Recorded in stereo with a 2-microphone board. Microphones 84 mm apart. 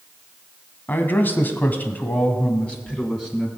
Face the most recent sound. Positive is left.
turn(degrees=10)  # may be behind; listen again after turning